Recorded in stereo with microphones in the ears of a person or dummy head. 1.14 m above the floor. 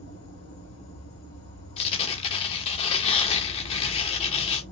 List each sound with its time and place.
0.0 s an insect: 75° left (ahead or behind), 2.5 m
1.8 s tearing paper: 30° left (ahead or behind), 0.8 m